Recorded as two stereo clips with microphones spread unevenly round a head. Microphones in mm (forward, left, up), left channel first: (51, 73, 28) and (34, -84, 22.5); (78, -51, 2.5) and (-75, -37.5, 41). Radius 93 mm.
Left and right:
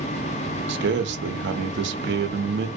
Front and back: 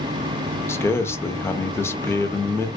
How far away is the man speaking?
About 0.6 m.